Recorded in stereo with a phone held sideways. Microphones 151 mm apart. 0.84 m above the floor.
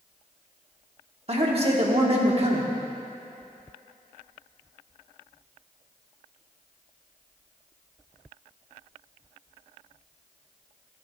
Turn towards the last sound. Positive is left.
turn(degrees=-40)  # may be behind; listen again after turning